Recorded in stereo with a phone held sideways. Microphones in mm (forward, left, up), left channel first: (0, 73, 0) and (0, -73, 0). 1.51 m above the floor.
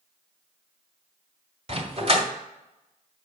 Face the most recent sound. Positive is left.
turn(degrees=-45)  # may be behind; listen again after turning